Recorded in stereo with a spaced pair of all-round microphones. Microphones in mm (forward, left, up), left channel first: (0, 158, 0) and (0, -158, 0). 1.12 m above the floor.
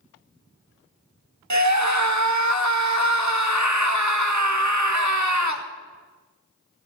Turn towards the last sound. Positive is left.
turn(degrees=-60)  # may be behind; listen again after turning